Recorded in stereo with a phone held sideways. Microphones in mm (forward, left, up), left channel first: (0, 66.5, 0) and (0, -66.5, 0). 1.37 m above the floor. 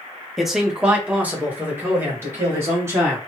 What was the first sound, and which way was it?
A man speaking, centre (ahead or behind).